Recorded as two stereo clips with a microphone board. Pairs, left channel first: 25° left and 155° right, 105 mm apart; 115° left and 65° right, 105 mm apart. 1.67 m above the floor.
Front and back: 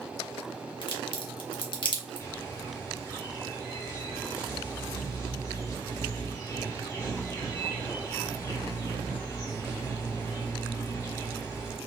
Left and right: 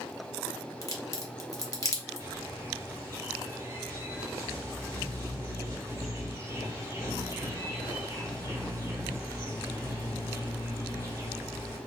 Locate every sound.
0.8 s a crack: 55° left, 0.7 m
2.2 s a bird: 25° right, 1.9 m